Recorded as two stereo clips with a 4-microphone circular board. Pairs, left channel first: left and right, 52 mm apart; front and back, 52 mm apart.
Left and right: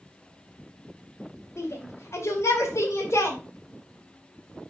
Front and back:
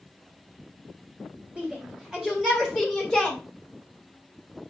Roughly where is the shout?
Left.